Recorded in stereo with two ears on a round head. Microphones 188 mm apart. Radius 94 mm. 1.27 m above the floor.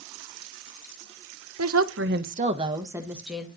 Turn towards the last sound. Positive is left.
turn(degrees=0)  # may be behind; listen again after turning